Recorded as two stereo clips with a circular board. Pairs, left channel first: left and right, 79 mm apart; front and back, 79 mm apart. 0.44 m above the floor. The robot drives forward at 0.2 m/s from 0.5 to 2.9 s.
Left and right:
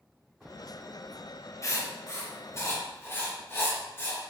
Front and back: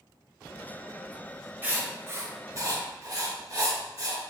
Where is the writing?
120° left, 0.5 m; by 4.2 s 145° left, 0.7 m.